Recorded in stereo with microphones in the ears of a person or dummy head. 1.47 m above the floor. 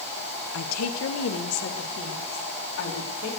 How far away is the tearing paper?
I don't hear tearing paper.